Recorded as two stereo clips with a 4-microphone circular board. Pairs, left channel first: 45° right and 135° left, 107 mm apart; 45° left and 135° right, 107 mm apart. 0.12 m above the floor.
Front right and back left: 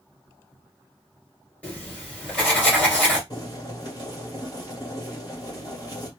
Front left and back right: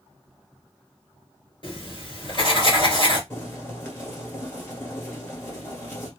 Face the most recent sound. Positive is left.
turn(degrees=-10)